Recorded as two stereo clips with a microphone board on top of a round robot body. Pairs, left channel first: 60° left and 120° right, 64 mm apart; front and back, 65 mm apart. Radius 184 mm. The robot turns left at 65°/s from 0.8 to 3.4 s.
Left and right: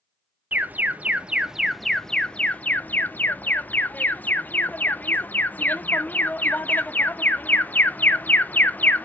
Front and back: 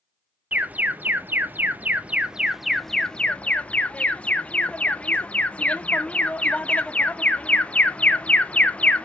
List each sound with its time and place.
0.5 s an alarm: 145° right, 1.0 m; by 9.1 s 45° left, 1.0 m